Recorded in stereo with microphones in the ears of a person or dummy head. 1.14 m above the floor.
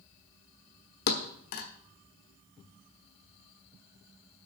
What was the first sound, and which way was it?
A thud, 50° left (ahead or behind).